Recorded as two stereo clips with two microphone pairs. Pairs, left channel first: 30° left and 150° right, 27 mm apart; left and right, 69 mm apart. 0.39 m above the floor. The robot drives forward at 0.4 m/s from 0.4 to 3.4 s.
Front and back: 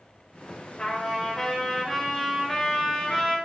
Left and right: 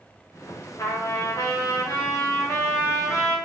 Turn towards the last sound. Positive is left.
turn(degrees=145)